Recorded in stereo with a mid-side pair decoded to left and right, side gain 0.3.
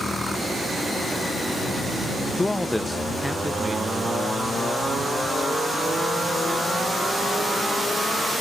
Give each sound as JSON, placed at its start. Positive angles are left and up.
{"t": 2.4, "sound": "a man speaking", "azimuth_deg": 30}